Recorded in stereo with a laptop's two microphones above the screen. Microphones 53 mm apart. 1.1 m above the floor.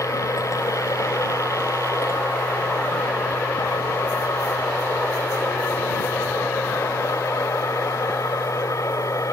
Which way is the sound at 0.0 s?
80° left.